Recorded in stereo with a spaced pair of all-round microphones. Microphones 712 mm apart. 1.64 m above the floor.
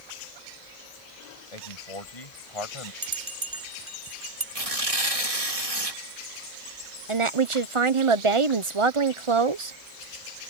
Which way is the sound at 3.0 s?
60° right (ahead or behind).